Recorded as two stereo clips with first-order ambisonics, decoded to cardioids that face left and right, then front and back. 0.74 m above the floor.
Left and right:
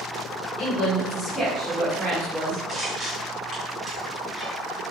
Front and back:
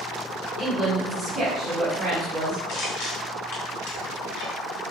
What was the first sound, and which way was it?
A woman speaking, 60° left.